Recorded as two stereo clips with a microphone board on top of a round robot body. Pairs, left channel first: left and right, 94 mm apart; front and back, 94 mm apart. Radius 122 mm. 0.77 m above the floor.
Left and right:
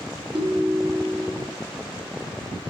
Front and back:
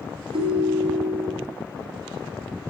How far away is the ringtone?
About 0.9 m.